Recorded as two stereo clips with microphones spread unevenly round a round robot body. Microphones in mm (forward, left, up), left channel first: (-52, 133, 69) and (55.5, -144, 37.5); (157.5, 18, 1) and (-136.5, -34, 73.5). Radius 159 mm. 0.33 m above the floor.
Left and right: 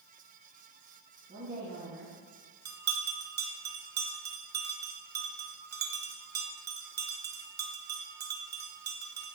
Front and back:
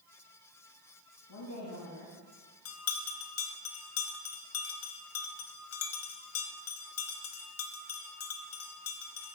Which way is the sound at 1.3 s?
10° right.